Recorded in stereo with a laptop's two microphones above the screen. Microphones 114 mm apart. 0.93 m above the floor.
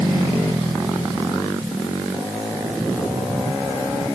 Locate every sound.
Only background noise.